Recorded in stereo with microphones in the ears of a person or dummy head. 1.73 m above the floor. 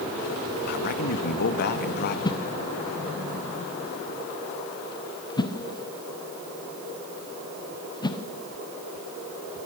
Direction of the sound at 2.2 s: 25° left (ahead or behind).